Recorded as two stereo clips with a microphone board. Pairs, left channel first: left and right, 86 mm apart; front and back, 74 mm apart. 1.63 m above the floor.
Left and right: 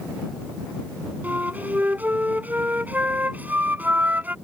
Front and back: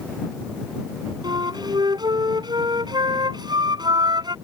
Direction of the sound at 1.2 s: 160° right.